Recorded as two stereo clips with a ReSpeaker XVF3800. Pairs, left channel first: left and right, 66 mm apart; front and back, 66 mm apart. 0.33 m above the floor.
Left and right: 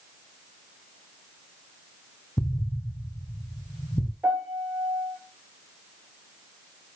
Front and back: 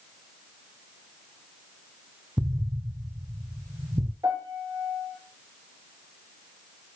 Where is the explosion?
125° left, 1.1 m.